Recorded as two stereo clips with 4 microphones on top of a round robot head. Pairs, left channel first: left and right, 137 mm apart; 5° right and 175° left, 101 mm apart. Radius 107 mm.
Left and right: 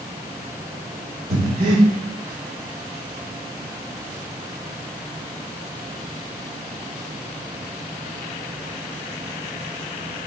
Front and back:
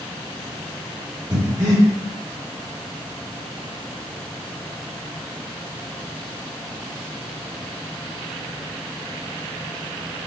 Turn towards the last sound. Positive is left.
turn(degrees=-120)